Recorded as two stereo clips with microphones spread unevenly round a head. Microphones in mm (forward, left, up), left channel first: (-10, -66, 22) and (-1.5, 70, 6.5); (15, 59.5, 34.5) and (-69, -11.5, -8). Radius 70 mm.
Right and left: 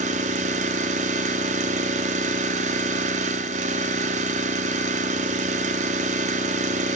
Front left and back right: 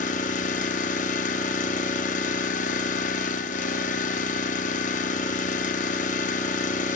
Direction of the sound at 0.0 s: 45° left.